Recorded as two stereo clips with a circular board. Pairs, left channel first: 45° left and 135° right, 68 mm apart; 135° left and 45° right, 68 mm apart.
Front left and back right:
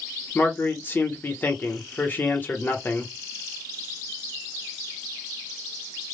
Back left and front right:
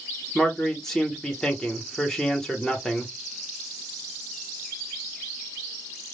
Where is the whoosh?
I don't hear a whoosh.